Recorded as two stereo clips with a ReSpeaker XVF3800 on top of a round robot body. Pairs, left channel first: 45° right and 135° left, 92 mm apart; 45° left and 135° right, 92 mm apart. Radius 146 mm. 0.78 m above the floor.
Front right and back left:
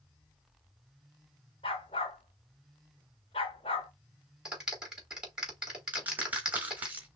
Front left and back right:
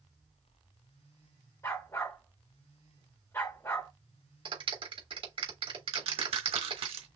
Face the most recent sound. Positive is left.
turn(degrees=-155)